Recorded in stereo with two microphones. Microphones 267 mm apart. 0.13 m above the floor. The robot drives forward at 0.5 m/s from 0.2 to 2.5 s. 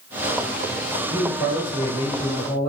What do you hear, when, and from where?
1.1 s a man speaking: 5° right (ahead or behind), 1.9 m